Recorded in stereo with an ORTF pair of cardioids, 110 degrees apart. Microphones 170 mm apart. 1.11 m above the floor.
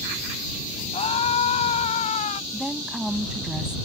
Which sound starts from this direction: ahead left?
A scream, at 0.9 s.